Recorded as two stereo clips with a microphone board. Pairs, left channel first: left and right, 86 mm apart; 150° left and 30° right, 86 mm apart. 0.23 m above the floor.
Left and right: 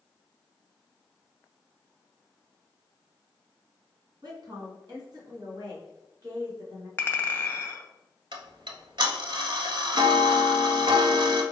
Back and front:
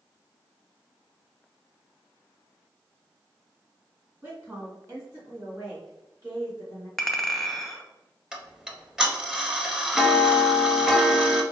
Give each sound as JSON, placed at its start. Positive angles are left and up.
{"t": 4.2, "sound": "a woman speaking", "azimuth_deg": -80, "distance_m": 1.9}
{"t": 7.0, "sound": "a clink", "azimuth_deg": 65, "distance_m": 0.5}
{"t": 8.3, "sound": "ticking", "azimuth_deg": -110, "distance_m": 0.6}